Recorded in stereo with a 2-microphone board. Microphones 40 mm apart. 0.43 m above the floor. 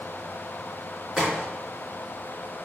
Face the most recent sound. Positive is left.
turn(degrees=0)  # may be behind; listen again after turning